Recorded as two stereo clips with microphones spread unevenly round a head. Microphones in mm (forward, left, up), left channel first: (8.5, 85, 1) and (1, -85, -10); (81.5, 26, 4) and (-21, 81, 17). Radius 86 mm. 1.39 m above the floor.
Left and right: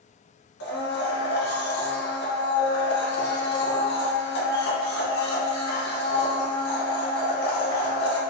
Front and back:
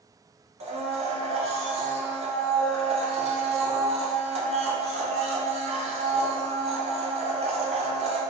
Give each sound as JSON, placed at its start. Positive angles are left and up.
{"t": 0.6, "sound": "a blender", "azimuth_deg": 120, "distance_m": 0.7}